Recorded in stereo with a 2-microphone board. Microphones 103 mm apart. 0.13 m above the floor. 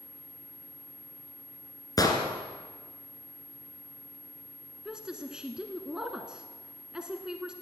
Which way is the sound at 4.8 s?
10° right (ahead or behind).